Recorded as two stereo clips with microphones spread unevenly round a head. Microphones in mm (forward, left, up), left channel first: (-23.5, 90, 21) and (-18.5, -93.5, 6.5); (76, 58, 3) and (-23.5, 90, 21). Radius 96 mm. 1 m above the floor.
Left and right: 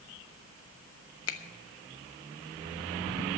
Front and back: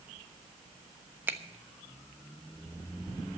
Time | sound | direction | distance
1.3 | a finger snap | 90° left | 1.1 m